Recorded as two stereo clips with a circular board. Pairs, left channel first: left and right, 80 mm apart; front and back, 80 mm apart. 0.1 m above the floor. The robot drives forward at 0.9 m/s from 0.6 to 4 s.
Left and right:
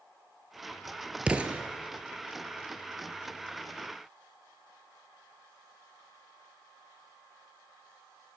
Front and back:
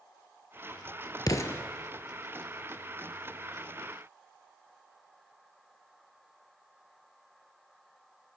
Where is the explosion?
20° right, 0.7 m; by 1.6 s 40° right, 0.5 m.